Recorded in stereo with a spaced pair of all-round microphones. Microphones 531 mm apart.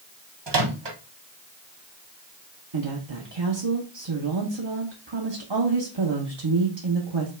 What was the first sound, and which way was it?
A microwave, 55° right (ahead or behind).